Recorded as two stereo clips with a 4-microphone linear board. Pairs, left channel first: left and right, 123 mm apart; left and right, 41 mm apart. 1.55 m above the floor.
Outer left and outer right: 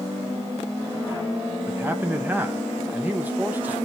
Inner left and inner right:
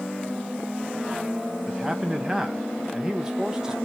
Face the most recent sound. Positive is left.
turn(degrees=-15)  # may be behind; listen again after turning